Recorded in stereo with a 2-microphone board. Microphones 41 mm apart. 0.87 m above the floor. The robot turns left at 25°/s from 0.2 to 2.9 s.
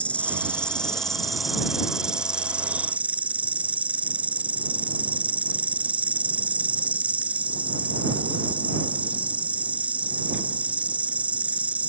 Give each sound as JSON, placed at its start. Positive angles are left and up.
{"t": 0.0, "sound": "an insect", "azimuth_deg": 35}